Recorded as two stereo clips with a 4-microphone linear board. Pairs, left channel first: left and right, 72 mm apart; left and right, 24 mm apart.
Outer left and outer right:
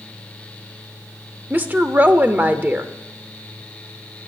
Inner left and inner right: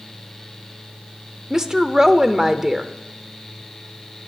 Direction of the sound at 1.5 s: 25° right (ahead or behind).